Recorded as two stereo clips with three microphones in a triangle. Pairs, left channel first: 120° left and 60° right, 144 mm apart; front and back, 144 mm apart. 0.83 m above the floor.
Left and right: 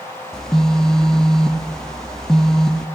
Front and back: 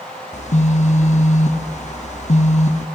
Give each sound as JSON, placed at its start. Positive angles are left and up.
{"t": 0.3, "sound": "a phone buzzing", "azimuth_deg": 35, "distance_m": 0.9}